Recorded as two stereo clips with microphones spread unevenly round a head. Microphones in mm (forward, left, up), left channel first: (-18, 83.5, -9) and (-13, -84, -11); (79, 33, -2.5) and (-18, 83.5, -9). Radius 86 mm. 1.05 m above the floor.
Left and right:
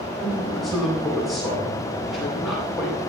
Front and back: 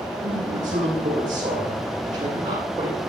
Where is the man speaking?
Straight behind, 8.5 m.